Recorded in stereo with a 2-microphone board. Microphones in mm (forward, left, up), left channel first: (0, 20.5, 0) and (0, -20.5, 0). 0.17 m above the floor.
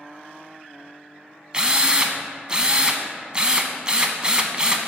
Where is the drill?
25° right (ahead or behind), 0.5 m.